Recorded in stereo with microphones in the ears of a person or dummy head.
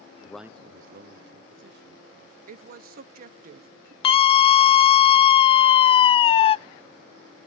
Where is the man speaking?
25° left (ahead or behind), 0.5 m; by 2.4 s 75° right (ahead or behind), 3 m.